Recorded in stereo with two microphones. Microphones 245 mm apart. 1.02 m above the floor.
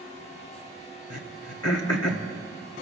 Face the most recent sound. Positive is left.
turn(degrees=80)